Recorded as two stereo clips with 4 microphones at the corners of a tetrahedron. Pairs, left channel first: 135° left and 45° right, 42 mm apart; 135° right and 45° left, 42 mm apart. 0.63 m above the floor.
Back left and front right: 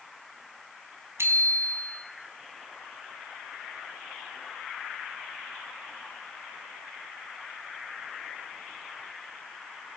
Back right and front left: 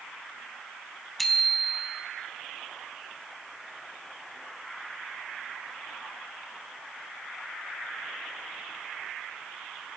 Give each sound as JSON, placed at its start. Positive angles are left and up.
{"t": 1.2, "sound": "a bicycle bell", "azimuth_deg": -45, "distance_m": 3.5}